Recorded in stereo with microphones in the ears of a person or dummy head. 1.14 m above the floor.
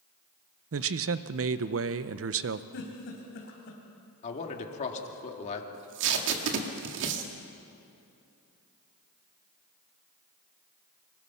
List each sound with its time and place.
0.7 s a man speaking: 60° right (ahead or behind), 0.8 m
2.7 s a giggle: 60° left (ahead or behind), 4 m
4.2 s a man speaking: 40° left (ahead or behind), 2.5 m
5.7 s tape being pulled: 65° right (ahead or behind), 2 m